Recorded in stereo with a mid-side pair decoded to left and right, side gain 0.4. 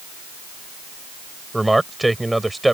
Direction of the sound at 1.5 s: 10° right.